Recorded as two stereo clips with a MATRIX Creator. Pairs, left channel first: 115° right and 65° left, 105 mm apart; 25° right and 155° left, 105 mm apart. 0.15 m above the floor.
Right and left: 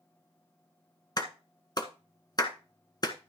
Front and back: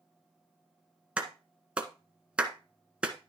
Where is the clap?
130° right, 1.5 m.